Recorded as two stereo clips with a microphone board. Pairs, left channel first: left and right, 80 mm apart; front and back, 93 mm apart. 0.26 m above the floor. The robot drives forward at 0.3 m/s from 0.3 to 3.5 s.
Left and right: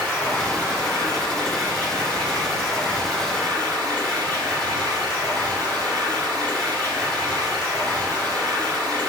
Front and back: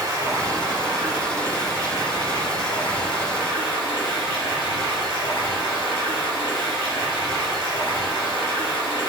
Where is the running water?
150° left, 1.4 m; by 9.1 s 165° left, 2 m.